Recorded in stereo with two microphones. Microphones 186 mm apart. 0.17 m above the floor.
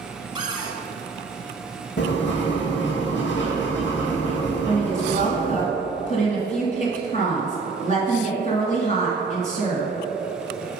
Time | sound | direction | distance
0.3 | a cupboard door | 25° right (ahead or behind) | 1.3 m
2.0 | writing | 75° left (ahead or behind) | 2 m
4.7 | a woman speaking | 40° left (ahead or behind) | 1.4 m